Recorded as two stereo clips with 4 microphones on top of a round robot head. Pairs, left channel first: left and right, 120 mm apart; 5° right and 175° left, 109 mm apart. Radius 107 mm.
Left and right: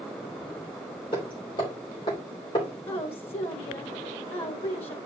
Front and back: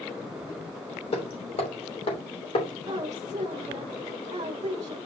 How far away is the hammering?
About 3 m.